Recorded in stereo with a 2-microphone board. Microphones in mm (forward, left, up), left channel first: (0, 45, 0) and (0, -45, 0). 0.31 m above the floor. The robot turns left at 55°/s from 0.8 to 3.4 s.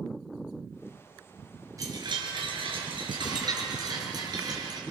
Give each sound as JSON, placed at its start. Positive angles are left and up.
{"t": 1.8, "sound": "a chime", "azimuth_deg": -40, "distance_m": 5.0}